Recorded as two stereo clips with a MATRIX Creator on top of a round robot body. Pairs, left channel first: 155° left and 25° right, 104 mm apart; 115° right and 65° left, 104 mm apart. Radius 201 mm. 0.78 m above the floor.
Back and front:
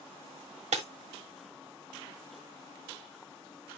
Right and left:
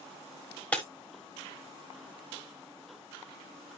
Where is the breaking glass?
35° right, 1.2 m.